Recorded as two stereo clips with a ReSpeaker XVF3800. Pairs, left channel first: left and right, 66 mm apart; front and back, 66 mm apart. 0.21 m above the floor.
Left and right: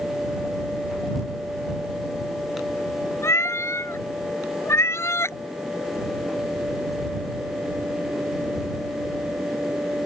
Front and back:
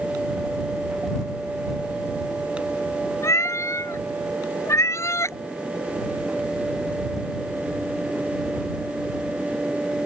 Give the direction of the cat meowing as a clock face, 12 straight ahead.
11 o'clock.